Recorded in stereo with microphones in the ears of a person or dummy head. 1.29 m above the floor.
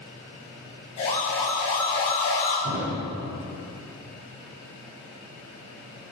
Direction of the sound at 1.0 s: 40° left (ahead or behind).